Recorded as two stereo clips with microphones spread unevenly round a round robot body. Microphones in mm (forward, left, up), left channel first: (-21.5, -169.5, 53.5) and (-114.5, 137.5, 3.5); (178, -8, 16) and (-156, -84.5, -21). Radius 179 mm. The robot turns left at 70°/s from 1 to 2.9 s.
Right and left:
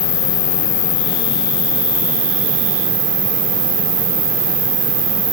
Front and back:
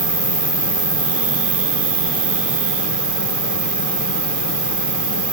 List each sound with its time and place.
0.0 s an insect: 100° right, 1.2 m; by 5.3 s 125° left, 1.2 m